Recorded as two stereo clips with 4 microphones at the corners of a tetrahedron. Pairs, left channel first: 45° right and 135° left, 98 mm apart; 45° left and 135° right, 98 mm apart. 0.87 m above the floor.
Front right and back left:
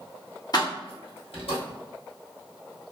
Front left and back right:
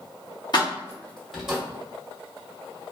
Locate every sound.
0.5 s keys jangling: straight ahead, 0.7 m; by 1.6 s 55° right, 1.1 m